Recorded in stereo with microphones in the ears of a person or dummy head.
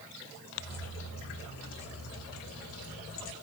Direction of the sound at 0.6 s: 65° left (ahead or behind).